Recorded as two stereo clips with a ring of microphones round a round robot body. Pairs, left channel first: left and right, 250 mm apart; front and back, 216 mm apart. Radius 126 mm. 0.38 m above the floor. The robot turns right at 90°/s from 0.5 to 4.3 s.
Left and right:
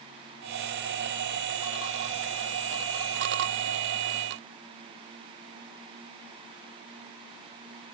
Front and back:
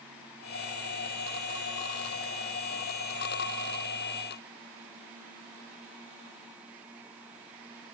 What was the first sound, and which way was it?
Only background noise.